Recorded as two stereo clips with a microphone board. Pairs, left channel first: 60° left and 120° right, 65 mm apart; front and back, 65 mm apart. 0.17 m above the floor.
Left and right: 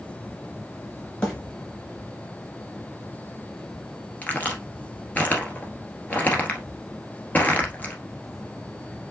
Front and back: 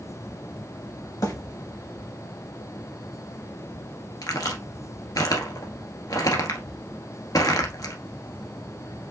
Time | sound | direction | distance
1.2 | a bird | 5° right | 3 m
4.2 | a crack | straight ahead | 1.4 m